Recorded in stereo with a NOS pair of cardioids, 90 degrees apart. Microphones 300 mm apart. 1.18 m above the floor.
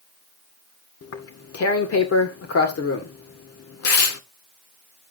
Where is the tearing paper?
50° left, 2.0 m.